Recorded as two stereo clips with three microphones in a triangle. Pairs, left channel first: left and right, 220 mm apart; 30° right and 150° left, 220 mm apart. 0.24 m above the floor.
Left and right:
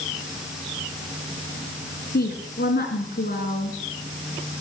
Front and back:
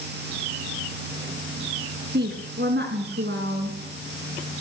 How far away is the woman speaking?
About 2.5 m.